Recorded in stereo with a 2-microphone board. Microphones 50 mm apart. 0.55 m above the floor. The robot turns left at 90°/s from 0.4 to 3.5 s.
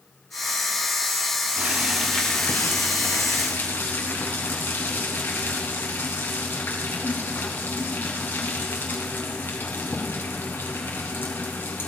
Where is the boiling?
140° right, 3 m; by 11.9 s 45° left, 3 m.